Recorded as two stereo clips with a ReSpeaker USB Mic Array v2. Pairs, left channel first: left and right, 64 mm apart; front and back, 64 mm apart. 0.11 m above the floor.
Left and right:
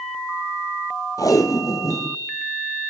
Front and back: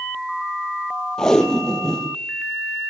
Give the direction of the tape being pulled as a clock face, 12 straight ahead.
9 o'clock.